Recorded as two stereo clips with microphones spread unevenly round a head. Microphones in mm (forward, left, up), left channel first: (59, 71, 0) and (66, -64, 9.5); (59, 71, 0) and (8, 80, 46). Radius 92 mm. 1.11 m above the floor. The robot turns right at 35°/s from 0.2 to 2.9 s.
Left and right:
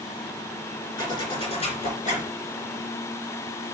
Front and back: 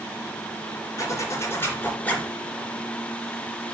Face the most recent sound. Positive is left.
turn(degrees=100)